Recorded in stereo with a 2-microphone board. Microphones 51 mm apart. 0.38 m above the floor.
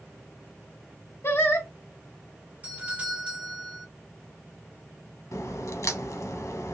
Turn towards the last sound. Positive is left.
turn(degrees=90)